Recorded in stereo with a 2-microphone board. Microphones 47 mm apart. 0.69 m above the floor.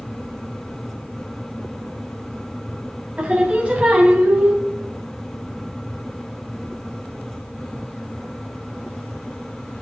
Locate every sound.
3.2 s singing: 25° right (ahead or behind), 3.5 m